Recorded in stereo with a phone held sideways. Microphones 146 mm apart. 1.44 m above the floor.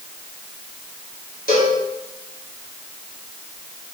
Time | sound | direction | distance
1.5 | a cowbell | 75° left (ahead or behind) | 4.5 m